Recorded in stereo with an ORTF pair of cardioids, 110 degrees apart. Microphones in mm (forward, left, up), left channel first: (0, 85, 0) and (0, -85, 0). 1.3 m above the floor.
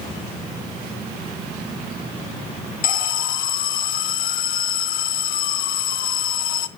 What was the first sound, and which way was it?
An alarm, 55° left.